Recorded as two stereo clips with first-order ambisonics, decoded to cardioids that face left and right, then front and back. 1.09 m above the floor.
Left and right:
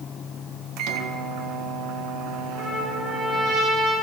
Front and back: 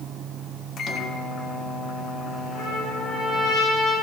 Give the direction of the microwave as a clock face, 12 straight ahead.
2 o'clock.